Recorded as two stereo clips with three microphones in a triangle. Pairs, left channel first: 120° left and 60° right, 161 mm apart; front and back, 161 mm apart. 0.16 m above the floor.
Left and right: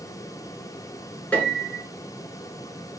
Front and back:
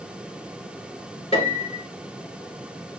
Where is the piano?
40° left, 1.4 m.